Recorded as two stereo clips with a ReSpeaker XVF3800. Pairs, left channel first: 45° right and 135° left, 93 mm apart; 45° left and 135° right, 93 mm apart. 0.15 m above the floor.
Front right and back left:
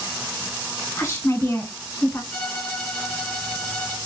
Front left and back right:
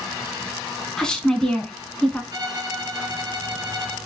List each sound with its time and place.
1.0 s a woman speaking: 25° right, 1.6 m
2.3 s a violin: 120° right, 2 m